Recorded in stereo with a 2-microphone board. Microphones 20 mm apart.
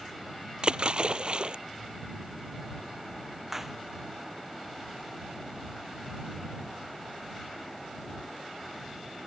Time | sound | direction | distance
0.6 | a splash | 50° right (ahead or behind) | ?
3.5 | a clap | 20° right (ahead or behind) | ?